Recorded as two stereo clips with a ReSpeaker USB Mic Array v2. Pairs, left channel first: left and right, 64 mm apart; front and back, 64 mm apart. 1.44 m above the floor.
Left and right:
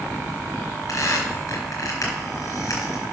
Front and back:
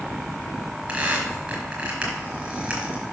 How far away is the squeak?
About 4 m.